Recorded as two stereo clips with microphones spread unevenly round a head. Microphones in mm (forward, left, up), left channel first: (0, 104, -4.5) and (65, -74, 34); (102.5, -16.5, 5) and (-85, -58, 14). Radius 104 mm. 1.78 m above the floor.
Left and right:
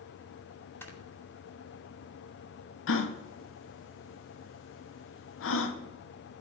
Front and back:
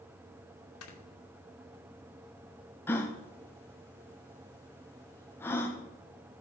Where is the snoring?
30° left, 2.5 m.